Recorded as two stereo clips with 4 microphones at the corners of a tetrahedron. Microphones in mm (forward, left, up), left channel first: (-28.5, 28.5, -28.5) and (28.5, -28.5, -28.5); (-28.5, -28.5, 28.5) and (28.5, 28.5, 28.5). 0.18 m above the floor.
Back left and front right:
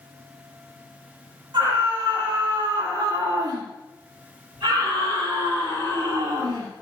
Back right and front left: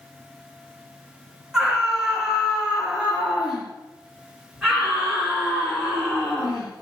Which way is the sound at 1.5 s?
40° right.